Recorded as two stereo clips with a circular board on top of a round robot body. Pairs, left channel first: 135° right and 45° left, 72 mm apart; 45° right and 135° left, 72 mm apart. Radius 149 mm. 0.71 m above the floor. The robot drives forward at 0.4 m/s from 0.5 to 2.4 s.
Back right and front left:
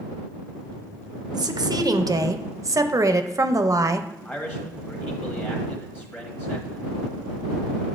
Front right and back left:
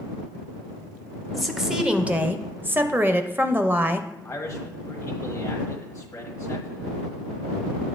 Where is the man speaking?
85° right, 1.2 m.